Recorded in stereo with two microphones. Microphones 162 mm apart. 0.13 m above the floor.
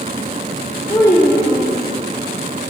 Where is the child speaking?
15° left (ahead or behind), 3.5 m.